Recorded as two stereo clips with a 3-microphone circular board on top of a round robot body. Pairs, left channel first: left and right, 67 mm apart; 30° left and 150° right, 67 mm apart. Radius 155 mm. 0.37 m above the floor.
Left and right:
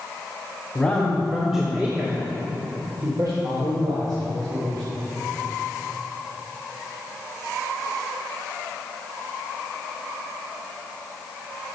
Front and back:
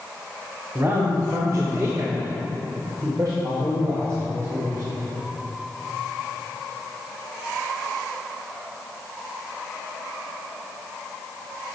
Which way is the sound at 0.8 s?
160° left.